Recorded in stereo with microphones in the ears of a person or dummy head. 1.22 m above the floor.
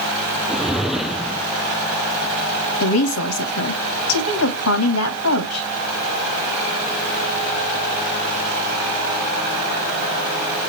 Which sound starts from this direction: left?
A woman speaking, at 2.8 s.